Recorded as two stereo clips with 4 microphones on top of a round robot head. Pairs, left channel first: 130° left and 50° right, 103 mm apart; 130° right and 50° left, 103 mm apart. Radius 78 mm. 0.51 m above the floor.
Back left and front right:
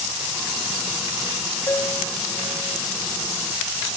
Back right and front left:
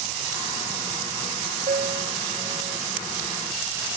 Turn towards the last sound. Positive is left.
turn(degrees=60)